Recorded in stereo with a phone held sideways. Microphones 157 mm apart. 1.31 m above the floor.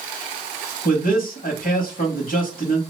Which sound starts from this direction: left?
A man speaking, at 0.8 s.